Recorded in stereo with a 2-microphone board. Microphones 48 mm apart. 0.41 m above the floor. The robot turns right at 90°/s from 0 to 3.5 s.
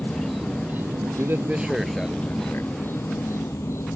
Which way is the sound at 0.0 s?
150° left.